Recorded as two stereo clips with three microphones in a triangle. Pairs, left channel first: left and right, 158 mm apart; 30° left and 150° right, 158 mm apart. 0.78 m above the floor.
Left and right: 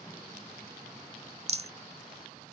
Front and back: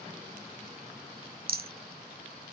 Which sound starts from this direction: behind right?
A rattle, at 1.5 s.